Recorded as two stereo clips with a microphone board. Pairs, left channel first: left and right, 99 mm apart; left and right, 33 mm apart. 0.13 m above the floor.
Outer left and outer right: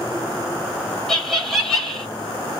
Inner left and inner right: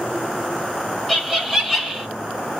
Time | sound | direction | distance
1.1 | laughter | centre (ahead or behind) | 1.5 m